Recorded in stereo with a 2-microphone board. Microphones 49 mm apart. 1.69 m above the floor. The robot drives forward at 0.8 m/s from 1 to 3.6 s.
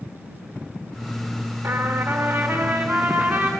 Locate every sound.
1.6 s a trumpet: 55° right (ahead or behind), 2 m; by 3.5 s 40° right (ahead or behind), 2.5 m